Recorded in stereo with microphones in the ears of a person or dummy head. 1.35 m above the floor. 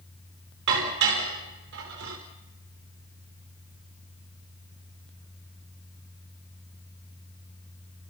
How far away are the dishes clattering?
About 5 m.